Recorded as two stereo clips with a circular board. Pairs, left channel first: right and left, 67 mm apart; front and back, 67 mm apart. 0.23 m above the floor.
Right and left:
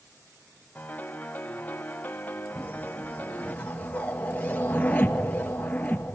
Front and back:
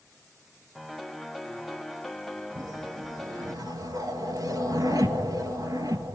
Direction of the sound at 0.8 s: 80° right.